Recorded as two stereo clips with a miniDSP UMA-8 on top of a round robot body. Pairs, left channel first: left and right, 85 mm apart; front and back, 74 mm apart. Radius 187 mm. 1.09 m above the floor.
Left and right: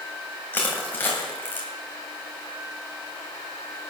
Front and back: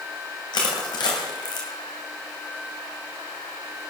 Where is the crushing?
20° left, 2 m.